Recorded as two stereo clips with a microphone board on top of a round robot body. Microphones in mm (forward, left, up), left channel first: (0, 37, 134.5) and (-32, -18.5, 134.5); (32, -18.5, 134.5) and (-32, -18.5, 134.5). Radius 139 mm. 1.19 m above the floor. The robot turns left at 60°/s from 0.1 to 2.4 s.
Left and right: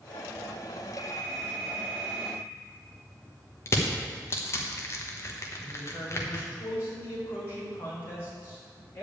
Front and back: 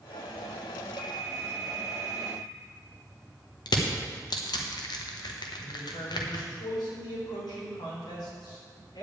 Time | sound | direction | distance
1.0 | a phone ringing | 105° left | 3.5 m
3.7 | crushing | 10° left | 1.1 m
5.6 | a man speaking | 5° left | 4 m